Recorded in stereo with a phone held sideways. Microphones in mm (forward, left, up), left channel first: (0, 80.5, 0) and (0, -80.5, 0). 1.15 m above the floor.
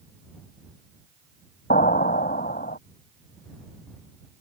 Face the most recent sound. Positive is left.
turn(degrees=70)  # may be behind; listen again after turning